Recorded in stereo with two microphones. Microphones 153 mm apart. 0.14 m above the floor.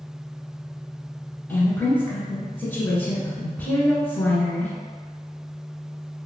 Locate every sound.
1.5 s a woman speaking: 10° left (ahead or behind), 1.1 m